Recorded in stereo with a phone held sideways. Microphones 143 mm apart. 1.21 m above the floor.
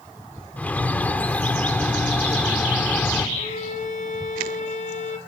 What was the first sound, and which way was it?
A bird, 10° left (ahead or behind).